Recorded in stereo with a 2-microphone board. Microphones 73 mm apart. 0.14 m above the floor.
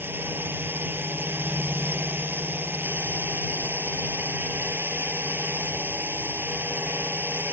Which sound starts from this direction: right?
A drone, at 0.0 s.